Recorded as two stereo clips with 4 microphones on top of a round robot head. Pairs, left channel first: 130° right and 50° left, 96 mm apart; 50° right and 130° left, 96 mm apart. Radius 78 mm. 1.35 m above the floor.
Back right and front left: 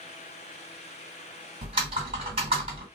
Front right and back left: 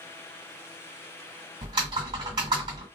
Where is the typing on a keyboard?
85° left, 1.9 m.